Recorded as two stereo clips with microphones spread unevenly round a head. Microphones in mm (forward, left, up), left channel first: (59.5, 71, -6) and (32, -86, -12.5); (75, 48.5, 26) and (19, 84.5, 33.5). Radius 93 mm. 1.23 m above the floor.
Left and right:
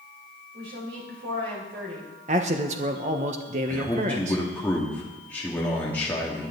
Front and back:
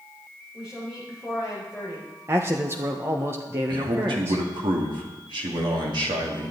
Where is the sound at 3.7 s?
165° left, 2 m.